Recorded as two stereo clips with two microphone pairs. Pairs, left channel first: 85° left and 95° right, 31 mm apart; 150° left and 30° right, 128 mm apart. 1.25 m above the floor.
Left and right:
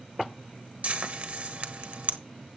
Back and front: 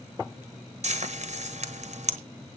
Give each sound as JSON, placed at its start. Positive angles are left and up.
{"t": 0.8, "sound": "frying", "azimuth_deg": -55, "distance_m": 1.1}